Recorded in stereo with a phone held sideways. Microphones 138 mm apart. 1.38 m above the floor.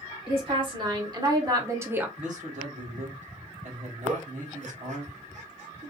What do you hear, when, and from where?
0.3 s a woman speaking: 40° right (ahead or behind), 1.5 m; by 2.1 s 10° right (ahead or behind), 0.6 m
2.2 s a man speaking: 60° right (ahead or behind), 1.3 m
4.0 s a giggle: 60° right (ahead or behind), 1.0 m